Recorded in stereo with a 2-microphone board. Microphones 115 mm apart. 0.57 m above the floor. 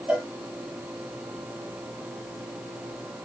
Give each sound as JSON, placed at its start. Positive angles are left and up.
{"t": 0.1, "sound": "a cowbell", "side_deg": -10, "distance_m": 1.0}